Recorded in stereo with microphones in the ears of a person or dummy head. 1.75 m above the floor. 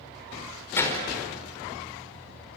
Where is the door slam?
15° left (ahead or behind), 4.5 m.